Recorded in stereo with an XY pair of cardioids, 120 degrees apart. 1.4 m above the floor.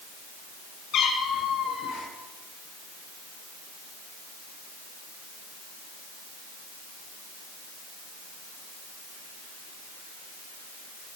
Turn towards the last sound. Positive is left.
turn(degrees=60)